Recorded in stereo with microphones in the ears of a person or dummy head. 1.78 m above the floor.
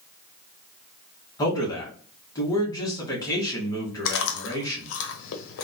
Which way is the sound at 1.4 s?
20° left (ahead or behind).